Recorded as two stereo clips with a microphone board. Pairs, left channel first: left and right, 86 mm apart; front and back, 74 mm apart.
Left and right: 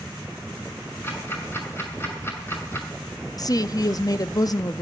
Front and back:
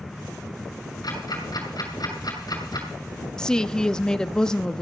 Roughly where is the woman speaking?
Left.